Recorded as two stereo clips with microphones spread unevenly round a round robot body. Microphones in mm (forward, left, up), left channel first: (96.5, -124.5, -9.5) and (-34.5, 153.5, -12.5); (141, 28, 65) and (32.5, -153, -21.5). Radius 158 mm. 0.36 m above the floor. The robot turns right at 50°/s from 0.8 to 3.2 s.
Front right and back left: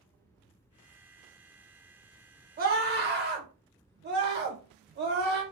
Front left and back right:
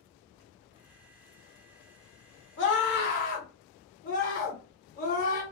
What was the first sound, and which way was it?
A scream, 85° left.